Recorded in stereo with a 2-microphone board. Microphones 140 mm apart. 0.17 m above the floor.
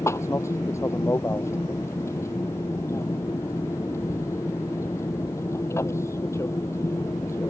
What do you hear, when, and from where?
0.0 s an aircraft: 20° left (ahead or behind)